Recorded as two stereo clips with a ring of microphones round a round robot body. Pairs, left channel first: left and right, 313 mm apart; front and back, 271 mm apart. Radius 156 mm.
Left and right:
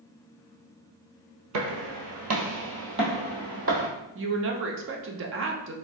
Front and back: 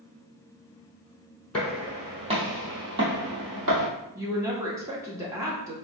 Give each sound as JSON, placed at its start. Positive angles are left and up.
{"t": 1.5, "sound": "footsteps", "azimuth_deg": -85, "distance_m": 1.1}
{"t": 4.2, "sound": "a woman speaking", "azimuth_deg": -105, "distance_m": 0.5}